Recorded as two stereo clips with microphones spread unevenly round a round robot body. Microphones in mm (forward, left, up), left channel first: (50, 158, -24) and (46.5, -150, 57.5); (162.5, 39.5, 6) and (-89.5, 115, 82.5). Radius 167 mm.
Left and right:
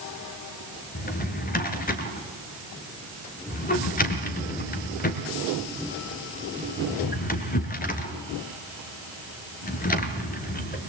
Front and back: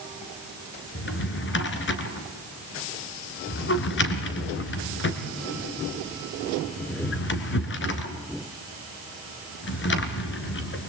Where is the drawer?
25° left, 2.0 m.